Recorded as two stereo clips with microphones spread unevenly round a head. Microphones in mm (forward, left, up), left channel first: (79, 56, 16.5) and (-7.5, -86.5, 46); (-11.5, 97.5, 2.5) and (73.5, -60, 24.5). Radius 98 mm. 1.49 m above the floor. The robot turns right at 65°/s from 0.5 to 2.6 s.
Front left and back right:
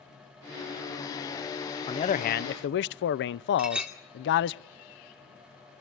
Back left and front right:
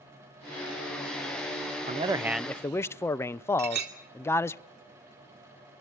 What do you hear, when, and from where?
1.9 s a man speaking: 5° right, 0.5 m; by 4.6 s 40° left, 0.5 m
3.6 s a clink: 40° right, 2.5 m